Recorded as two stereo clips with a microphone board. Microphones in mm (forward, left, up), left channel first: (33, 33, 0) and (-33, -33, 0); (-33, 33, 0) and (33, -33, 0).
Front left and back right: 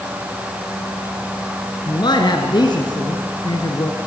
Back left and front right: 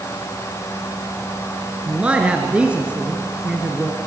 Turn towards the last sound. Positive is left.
turn(degrees=30)